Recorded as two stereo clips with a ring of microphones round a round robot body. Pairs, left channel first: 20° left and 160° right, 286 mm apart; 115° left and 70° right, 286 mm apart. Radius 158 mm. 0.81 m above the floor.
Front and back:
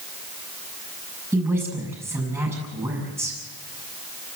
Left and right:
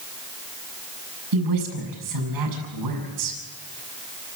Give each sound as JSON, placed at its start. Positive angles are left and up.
{"t": 1.3, "sound": "a woman speaking", "azimuth_deg": -75, "distance_m": 7.0}